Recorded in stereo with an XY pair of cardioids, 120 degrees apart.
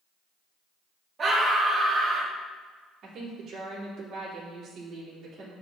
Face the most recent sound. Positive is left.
turn(degrees=-50)